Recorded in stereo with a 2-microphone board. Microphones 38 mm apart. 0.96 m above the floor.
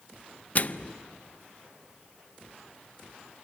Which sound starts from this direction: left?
A microwave, at 0.6 s.